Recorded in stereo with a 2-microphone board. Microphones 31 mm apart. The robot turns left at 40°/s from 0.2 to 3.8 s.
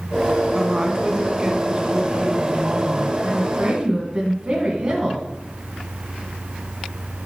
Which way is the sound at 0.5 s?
25° right (ahead or behind).